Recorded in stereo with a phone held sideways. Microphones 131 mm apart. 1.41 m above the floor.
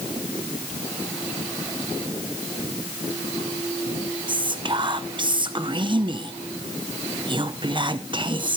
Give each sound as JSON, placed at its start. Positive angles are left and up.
{"t": 4.3, "sound": "whispering", "side_deg": -35, "distance_m": 0.6}